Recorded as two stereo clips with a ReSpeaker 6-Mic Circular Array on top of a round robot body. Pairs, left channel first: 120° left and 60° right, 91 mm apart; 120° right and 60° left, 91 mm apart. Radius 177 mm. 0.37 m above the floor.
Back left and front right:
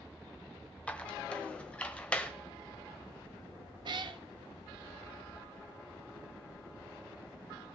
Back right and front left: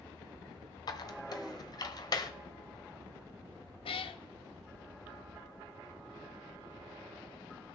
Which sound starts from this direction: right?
A cat meowing, at 3.9 s.